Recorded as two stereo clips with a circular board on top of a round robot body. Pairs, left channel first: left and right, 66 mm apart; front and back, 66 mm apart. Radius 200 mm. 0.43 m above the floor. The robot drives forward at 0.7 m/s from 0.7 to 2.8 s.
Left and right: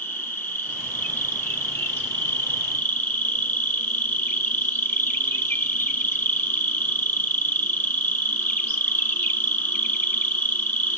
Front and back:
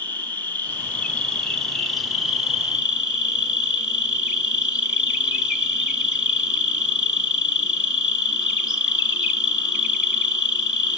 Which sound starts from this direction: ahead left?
An insect, at 0.0 s.